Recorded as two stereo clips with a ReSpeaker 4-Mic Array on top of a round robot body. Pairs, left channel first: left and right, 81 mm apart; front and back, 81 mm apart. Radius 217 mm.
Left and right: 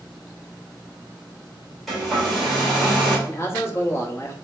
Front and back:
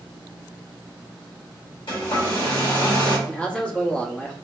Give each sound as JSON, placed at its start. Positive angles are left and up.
{"t": 1.9, "sound": "a hair dryer", "azimuth_deg": 0, "distance_m": 1.9}
{"t": 3.3, "sound": "a man speaking", "azimuth_deg": 65, "distance_m": 1.2}